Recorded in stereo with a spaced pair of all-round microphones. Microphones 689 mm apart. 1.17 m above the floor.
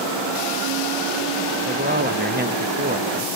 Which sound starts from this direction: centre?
A man speaking, at 1.7 s.